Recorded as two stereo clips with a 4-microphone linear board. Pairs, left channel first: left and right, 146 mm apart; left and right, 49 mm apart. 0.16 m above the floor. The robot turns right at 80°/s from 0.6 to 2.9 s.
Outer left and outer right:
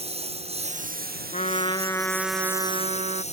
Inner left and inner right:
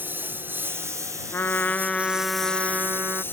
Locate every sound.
0.0 s a lawn mower: 140° right; by 3.3 s 45° left
1.3 s a trumpet: 110° left; by 3.2 s 125° right